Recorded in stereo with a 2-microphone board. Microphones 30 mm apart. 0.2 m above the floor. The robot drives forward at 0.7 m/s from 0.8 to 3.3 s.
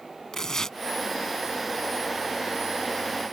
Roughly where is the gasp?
I don't hear a gasp.